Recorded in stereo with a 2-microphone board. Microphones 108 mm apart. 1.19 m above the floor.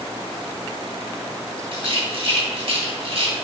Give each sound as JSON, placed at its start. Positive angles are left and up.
{"t": 1.7, "sound": "a rattle", "side_deg": -60, "distance_m": 2.5}